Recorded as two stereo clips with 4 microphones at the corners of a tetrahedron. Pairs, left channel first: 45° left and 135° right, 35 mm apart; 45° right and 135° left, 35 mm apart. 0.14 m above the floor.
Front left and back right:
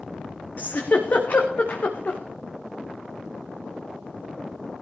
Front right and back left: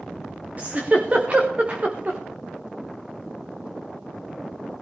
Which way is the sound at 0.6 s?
85° left.